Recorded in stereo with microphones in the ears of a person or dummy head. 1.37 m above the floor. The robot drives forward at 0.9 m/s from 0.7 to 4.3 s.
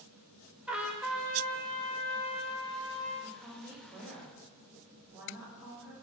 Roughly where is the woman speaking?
Centre.